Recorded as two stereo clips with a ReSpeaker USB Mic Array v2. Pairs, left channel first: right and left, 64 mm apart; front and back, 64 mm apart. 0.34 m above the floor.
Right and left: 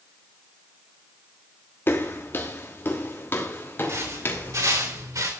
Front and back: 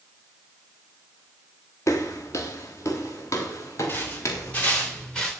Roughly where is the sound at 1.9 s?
Ahead right.